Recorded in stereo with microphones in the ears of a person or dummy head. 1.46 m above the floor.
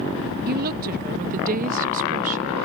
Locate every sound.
0.5 s a woman speaking: 45° right (ahead or behind); by 2.5 s 35° right (ahead or behind)